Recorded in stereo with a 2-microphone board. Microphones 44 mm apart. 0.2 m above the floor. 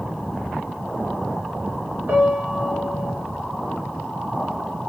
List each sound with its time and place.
2.1 s a piano: 50° right (ahead or behind), 1.2 m